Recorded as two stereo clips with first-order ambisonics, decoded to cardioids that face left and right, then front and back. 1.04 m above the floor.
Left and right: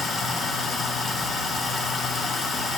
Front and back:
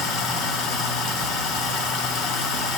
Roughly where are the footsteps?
No footsteps in this recording.